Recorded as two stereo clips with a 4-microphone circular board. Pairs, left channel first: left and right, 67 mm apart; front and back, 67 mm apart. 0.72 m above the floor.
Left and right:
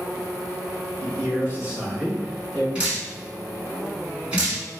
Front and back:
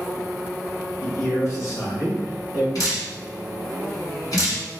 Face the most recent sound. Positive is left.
turn(degrees=-20)